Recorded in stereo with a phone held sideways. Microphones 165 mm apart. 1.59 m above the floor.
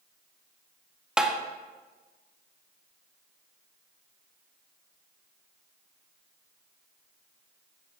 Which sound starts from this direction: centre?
Tapping, at 1.2 s.